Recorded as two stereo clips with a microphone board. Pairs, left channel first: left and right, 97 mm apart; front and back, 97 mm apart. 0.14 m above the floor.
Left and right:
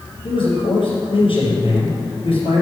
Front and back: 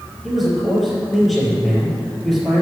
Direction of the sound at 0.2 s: 90° left.